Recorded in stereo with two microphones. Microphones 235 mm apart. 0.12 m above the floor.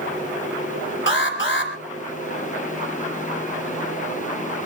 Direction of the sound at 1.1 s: 55° left (ahead or behind).